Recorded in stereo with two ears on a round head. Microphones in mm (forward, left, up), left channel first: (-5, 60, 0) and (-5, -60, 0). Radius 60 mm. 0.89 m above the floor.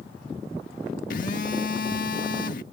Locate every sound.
1.1 s a phone buzzing: 70° left (ahead or behind)